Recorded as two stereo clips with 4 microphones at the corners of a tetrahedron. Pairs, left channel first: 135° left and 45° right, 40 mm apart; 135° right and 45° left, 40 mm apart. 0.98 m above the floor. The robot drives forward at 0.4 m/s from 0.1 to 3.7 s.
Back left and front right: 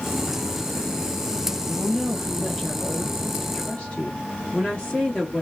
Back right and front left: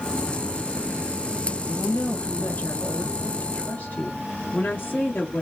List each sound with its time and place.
1.7 s a woman speaking: 145° right, 0.7 m; by 5.4 s 165° right, 1.3 m